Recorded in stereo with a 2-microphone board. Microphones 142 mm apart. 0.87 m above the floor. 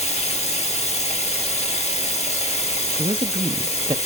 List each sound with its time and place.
0.0 s running water: 50° left (ahead or behind), 0.9 m
3.0 s a man speaking: 35° right (ahead or behind), 0.6 m